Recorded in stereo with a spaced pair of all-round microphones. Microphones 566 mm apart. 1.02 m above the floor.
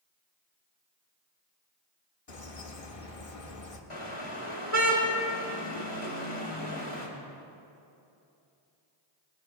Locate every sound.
2.3 s a bird: 70° left (ahead or behind), 1.4 m
3.9 s a car horn: 60° left (ahead or behind), 2.5 m